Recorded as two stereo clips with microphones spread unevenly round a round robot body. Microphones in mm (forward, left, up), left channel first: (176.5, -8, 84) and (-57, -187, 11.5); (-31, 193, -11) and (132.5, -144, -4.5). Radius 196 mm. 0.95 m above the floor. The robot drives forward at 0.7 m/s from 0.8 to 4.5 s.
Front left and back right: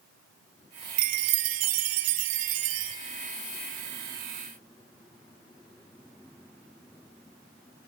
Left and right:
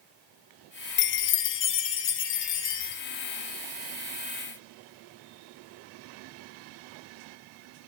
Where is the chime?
170° left, 0.5 m; by 3.0 s straight behind, 1.8 m.